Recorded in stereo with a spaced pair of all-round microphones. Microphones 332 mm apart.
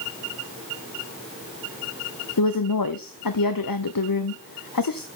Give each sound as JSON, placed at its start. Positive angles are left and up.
{"t": 2.4, "sound": "a woman speaking", "side_deg": 85, "distance_m": 0.9}